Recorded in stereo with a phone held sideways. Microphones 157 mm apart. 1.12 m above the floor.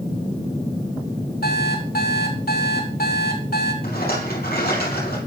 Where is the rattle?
80° left, 4 m.